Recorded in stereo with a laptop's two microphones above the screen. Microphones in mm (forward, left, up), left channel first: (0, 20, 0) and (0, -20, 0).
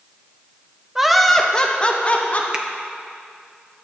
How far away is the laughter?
About 0.6 m.